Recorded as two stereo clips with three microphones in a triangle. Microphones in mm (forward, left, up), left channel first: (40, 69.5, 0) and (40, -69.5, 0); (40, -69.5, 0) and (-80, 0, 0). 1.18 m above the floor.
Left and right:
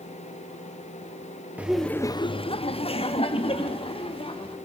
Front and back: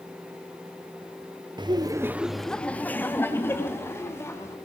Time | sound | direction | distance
1.6 | laughter | 165° right | 0.8 m